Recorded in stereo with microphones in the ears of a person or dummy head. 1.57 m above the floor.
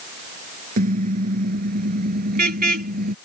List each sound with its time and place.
0.8 s a car horn: 50° right (ahead or behind)